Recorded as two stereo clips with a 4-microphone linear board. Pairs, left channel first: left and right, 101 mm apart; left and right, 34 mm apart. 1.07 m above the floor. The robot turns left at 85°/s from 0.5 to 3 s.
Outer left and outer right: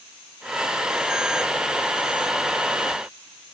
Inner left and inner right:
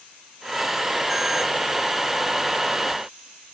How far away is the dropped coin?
No dropped coin in this recording.